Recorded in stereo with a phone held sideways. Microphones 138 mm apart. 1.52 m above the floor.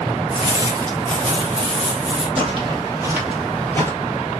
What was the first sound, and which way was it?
Footsteps, 20° right (ahead or behind).